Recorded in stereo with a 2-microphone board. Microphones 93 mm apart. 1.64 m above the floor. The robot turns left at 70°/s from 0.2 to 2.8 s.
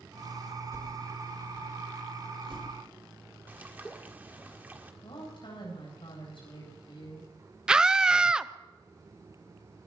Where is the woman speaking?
65° left (ahead or behind), 9 m.